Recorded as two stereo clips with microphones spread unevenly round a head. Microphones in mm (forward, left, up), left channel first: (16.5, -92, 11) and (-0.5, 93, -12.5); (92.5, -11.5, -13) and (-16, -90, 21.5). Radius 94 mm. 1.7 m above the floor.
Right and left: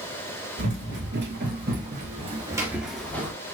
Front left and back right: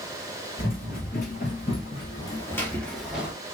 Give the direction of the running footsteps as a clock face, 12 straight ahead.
9 o'clock.